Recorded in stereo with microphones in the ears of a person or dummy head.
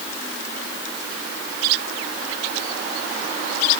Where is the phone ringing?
No phone ringing in this recording.